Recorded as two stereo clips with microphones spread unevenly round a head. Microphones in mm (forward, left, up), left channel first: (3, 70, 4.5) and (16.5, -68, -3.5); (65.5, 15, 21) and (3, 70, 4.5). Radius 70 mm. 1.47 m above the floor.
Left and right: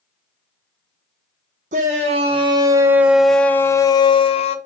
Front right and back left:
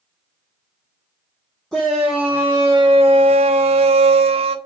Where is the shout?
125° right, 1.1 m; by 4.6 s 145° left, 1.1 m.